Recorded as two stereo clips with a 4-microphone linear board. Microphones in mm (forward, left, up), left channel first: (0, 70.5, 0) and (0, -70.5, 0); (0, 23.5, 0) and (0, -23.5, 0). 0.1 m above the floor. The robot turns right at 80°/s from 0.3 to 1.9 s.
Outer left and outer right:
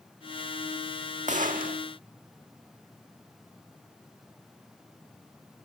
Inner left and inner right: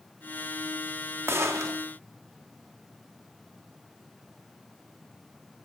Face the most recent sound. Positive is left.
turn(degrees=-70)